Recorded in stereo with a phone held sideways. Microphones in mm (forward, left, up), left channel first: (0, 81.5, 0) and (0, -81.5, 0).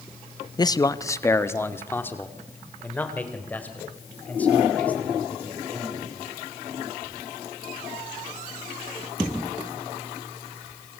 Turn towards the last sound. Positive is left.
turn(degrees=10)  # may be behind; listen again after turning